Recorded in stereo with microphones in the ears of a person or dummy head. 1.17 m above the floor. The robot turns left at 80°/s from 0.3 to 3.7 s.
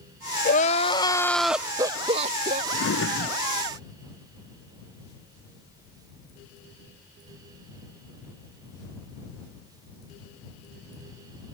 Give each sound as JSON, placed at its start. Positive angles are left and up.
{"t": 0.5, "sound": "crying", "azimuth_deg": 75}
{"t": 2.7, "sound": "a drawer", "azimuth_deg": 120}